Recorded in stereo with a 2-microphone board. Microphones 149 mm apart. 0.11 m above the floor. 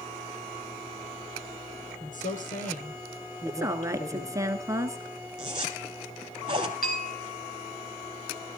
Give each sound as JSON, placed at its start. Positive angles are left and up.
{"t": 2.0, "sound": "a woman speaking", "side_deg": 65, "distance_m": 3.5}
{"t": 3.5, "sound": "a woman speaking", "side_deg": -20, "distance_m": 1.2}
{"t": 5.4, "sound": "a zipper", "side_deg": -35, "distance_m": 2.5}
{"t": 6.8, "sound": "a bell", "side_deg": 75, "distance_m": 4.0}